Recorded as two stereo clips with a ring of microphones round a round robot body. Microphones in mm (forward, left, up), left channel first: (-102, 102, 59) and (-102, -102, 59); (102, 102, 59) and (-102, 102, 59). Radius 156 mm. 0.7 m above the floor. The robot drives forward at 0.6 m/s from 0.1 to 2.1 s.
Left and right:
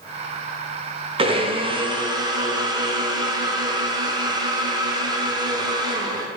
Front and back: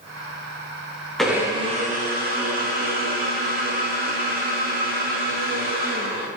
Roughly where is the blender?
Right.